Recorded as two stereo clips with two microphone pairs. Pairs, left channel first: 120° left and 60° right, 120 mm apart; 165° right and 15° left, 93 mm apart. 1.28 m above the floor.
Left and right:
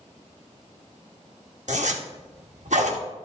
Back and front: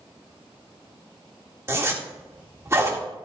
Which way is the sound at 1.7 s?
45° right.